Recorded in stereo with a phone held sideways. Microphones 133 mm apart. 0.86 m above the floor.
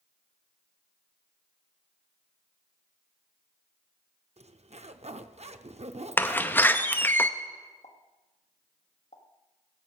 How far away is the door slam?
About 0.6 m.